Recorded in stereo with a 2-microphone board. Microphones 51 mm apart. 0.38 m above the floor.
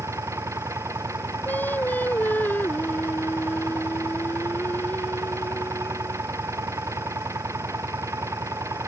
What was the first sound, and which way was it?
An engine running, 70° right (ahead or behind).